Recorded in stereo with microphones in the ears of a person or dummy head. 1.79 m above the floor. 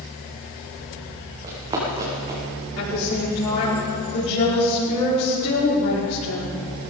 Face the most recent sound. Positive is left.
turn(degrees=70)  # may be behind; listen again after turning